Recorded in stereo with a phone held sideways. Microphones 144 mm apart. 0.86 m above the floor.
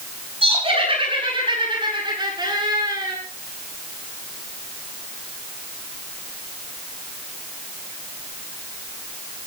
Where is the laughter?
40° right (ahead or behind), 9.5 m; by 3.2 s 25° right (ahead or behind), 10 m.